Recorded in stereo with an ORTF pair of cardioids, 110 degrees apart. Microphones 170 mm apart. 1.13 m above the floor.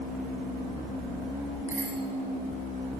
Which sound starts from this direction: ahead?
A bicycle bell, at 1.7 s.